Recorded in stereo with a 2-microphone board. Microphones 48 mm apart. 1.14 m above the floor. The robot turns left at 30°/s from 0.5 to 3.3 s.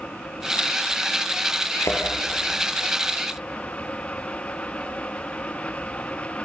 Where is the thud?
80° left, 5 m.